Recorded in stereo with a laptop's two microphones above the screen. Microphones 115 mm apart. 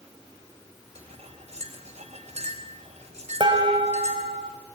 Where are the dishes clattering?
45° right (ahead or behind), 4 m.